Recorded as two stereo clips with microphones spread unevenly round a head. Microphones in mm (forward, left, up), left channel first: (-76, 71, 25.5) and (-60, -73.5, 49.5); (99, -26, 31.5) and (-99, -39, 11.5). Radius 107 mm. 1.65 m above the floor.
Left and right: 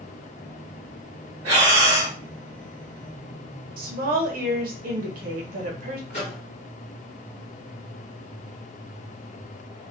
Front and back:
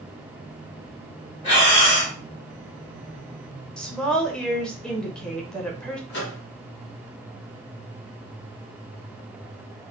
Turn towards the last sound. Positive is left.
turn(degrees=35)